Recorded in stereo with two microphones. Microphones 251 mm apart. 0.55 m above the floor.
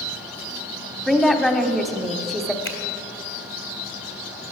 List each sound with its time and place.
1.1 s a woman speaking: centre (ahead or behind), 0.9 m
2.6 s a finger snap: 60° left (ahead or behind), 1.7 m